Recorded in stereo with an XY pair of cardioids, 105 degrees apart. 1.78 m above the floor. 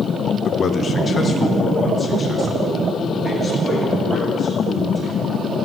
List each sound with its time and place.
0.5 s a man speaking: 55° left, 0.8 m; by 5.1 s 30° left, 8 m